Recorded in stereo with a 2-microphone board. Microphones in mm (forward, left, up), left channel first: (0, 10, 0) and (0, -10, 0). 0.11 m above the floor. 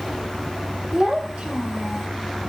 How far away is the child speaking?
About 3.5 m.